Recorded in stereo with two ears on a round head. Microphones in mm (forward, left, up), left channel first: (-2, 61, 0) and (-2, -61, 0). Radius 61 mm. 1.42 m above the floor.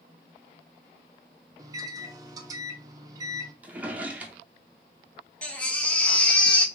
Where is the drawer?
10° right (ahead or behind), 0.6 m.